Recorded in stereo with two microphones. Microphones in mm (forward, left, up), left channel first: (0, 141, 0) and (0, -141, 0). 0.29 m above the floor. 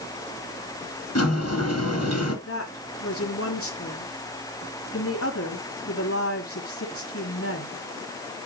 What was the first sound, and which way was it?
A sliding door, 60° left (ahead or behind).